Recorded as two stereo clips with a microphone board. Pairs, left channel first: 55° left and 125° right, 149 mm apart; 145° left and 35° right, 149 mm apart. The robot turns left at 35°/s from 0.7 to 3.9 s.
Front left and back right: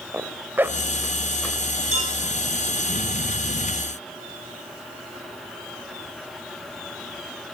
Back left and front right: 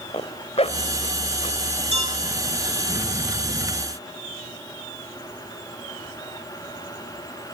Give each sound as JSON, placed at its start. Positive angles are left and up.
{"t": 0.1, "sound": "a zipper", "azimuth_deg": 165, "distance_m": 1.6}
{"t": 1.9, "sound": "a clink", "azimuth_deg": -80, "distance_m": 9.0}